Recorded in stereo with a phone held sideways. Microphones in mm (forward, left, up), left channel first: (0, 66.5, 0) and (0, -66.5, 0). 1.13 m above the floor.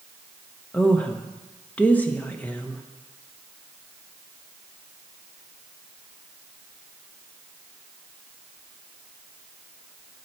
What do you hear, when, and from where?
0.7 s a woman speaking: 10° left (ahead or behind), 1.0 m